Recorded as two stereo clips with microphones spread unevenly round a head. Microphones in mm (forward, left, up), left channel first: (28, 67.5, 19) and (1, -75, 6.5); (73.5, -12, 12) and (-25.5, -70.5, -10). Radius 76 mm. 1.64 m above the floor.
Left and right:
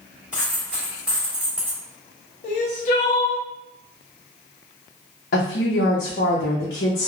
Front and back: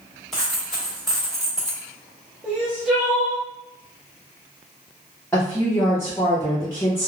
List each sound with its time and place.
0.3 s a dropped coin: 20° right, 1.3 m
2.4 s crying: 125° left, 0.6 m
5.3 s a woman speaking: 105° left, 0.6 m